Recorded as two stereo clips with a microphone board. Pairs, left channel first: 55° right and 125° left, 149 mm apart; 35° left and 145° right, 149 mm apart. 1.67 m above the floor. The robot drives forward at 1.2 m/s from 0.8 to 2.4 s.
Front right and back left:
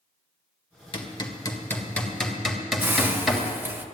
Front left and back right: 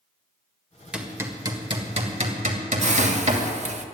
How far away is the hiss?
About 0.9 m.